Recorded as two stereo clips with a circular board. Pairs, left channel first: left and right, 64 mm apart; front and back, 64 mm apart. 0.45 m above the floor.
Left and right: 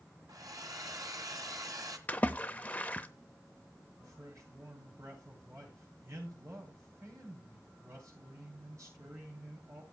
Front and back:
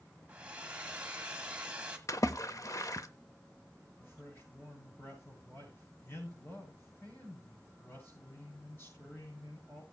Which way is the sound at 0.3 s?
110° right.